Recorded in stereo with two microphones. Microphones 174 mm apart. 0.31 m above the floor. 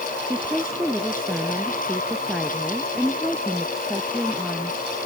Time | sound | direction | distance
0.2 | a woman speaking | 5° right (ahead or behind) | ?